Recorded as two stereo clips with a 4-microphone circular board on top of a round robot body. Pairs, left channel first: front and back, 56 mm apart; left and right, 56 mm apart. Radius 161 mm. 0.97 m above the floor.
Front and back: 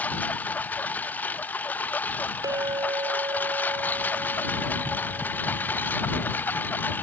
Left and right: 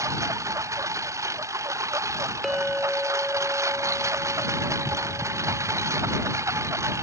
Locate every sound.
0.0 s a lawn mower: 60° right; by 7.0 s 55° right
2.4 s a clink: 175° right